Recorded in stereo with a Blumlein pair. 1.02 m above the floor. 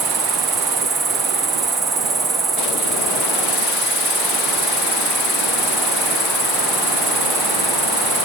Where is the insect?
10° right, 1.1 m.